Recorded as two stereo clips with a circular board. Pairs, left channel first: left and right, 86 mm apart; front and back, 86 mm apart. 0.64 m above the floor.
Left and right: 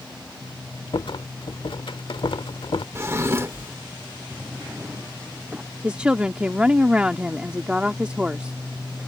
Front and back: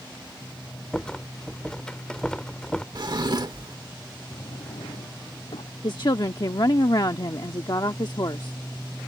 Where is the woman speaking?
15° right.